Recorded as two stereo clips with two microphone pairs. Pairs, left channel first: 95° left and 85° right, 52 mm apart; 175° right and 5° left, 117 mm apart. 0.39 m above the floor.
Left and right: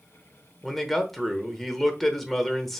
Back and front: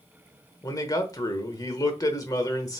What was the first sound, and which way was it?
A man speaking, straight behind.